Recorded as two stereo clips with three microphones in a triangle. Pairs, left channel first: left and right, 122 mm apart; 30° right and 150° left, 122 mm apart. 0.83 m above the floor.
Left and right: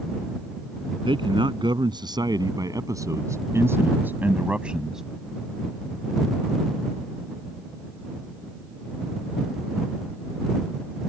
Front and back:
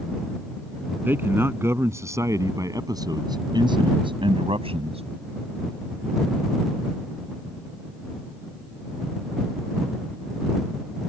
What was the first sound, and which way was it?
A man speaking, 135° right.